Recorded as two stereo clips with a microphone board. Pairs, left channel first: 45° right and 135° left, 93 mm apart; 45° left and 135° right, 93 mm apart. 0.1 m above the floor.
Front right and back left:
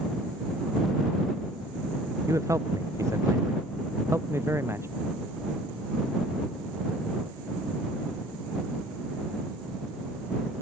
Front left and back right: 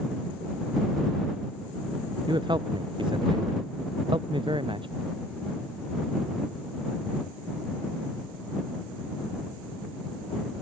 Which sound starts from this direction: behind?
A man speaking, at 2.3 s.